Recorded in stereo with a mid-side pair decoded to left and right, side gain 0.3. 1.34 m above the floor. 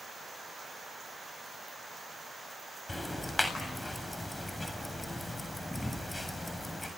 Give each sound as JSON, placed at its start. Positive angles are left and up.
{"t": 2.9, "sound": "ticking", "azimuth_deg": 20, "distance_m": 7.5}